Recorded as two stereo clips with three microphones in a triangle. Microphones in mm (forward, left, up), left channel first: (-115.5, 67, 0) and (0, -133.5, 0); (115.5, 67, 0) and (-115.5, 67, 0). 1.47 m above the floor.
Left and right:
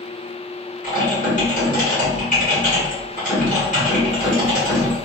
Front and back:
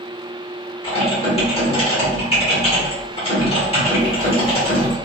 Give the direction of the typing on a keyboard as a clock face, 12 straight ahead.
10 o'clock.